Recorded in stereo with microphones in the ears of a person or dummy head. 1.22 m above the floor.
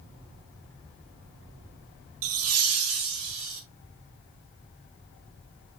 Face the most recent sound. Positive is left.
turn(degrees=-70)  # may be behind; listen again after turning